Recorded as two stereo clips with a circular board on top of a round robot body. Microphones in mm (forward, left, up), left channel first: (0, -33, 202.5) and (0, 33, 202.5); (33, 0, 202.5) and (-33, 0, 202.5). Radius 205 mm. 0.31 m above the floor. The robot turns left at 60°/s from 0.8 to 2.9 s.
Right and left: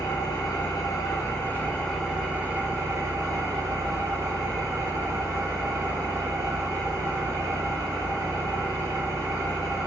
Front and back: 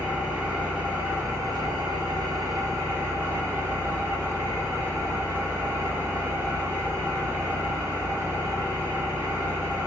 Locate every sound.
0.0 s an engine running: 110° right, 1.5 m; by 9.9 s 125° left, 1.5 m